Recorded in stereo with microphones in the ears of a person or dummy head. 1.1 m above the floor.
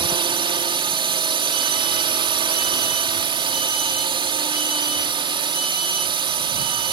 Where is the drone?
30° right (ahead or behind).